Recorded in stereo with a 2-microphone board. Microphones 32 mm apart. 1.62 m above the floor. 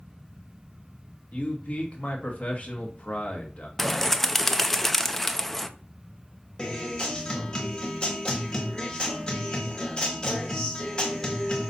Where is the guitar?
30° left (ahead or behind), 2.0 m.